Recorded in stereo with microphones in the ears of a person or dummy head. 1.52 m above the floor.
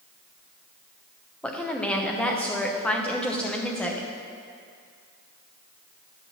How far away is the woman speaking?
About 0.9 m.